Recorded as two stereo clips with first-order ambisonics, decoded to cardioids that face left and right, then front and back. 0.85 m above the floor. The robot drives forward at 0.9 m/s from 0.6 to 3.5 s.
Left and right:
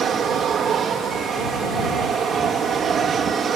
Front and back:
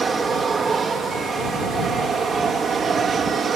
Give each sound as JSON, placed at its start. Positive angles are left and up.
{"t": 0.0, "sound": "an aircraft", "azimuth_deg": -120}